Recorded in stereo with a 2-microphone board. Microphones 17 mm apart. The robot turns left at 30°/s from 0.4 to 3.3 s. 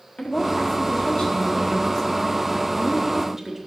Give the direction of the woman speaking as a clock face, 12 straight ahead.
10 o'clock.